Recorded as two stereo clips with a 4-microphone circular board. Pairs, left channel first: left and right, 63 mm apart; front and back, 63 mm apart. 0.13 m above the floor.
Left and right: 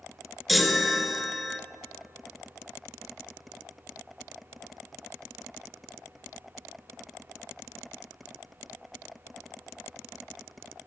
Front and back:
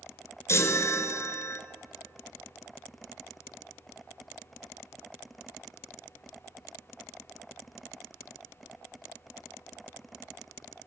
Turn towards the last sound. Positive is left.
turn(degrees=0)